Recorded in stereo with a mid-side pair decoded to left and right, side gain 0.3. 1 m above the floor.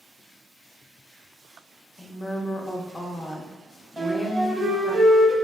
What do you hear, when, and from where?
2.0 s a woman speaking: 30° left, 0.5 m
4.0 s a flute: 35° right, 0.7 m